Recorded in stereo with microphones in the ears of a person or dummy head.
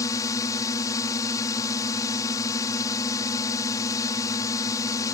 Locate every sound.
0.0 s a drone: 20° left (ahead or behind)